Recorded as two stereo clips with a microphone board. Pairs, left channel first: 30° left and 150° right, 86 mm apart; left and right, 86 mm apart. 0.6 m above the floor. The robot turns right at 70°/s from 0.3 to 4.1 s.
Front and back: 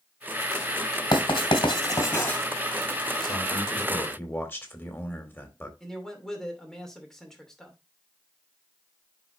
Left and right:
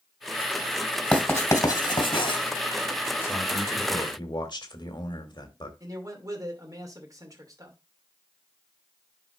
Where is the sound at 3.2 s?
30° left, 2 m; by 5.7 s 90° left, 2 m.